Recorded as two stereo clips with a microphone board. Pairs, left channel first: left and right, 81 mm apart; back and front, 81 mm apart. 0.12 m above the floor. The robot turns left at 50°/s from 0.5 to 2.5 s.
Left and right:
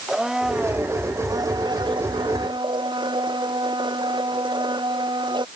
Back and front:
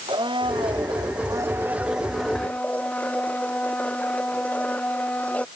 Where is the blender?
10° right; by 5.5 s 110° right.